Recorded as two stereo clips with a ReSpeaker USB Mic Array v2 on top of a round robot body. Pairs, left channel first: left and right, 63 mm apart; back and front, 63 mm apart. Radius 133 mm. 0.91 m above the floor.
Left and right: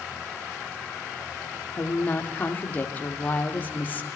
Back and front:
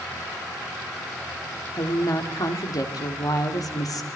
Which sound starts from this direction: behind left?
A woman speaking, at 1.7 s.